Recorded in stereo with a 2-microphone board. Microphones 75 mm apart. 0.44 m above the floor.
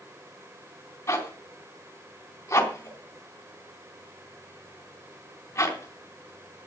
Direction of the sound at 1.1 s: 35° left (ahead or behind).